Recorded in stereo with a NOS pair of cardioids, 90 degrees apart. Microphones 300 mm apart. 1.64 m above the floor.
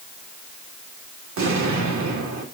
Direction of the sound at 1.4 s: 70° right.